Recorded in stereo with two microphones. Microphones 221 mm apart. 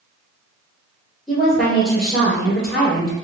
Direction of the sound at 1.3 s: Centre (ahead or behind).